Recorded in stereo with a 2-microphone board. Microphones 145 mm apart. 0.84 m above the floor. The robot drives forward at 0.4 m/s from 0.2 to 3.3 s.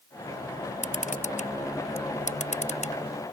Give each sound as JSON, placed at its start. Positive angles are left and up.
{"t": 0.8, "sound": "a camera shutter", "side_deg": 65}